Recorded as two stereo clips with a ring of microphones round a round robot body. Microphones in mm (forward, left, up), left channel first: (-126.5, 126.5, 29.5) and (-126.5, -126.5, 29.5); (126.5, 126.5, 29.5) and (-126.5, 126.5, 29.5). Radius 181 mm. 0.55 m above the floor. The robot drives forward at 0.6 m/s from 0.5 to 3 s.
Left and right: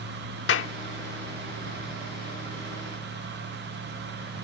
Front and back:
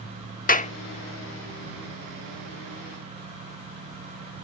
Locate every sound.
0.5 s a clap: 55° left; by 0.7 s 60° left